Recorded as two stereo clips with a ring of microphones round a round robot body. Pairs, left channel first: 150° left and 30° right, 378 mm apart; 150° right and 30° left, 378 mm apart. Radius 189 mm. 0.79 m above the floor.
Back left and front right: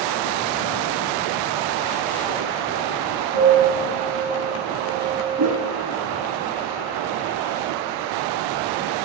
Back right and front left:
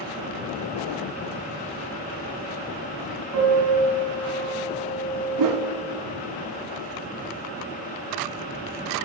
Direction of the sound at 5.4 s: 10° left.